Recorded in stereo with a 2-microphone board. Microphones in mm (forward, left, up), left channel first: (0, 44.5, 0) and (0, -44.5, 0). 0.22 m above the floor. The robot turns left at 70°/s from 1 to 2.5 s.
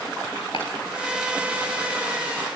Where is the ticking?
70° left (ahead or behind), 9 m.